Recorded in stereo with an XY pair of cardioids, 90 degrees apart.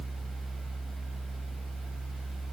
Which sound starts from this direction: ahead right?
A fan, at 0.0 s.